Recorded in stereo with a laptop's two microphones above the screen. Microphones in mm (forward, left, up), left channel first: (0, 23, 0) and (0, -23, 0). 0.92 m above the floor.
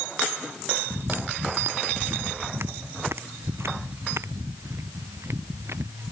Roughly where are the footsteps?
Right.